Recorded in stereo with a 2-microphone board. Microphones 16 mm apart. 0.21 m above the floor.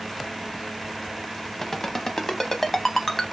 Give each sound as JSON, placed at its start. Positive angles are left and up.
{"t": 1.6, "sound": "a ringtone", "side_deg": 20, "distance_m": 0.5}